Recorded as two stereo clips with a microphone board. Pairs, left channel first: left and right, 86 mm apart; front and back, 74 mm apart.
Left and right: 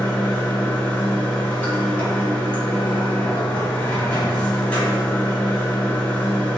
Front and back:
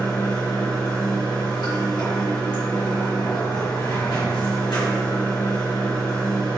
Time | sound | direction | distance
0.0 | running water | 20° left | 1.5 m